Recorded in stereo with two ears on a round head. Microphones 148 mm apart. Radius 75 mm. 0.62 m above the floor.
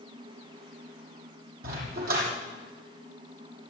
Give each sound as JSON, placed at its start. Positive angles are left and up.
{"t": 1.6, "sound": "a dog barking", "side_deg": -70, "distance_m": 7.5}